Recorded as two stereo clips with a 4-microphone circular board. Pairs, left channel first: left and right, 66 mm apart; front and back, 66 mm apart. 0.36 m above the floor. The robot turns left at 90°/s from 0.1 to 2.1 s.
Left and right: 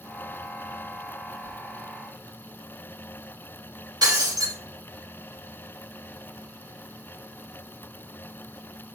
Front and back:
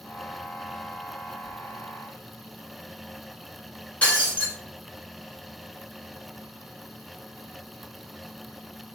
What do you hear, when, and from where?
4.0 s breaking glass: 70° right, 1.4 m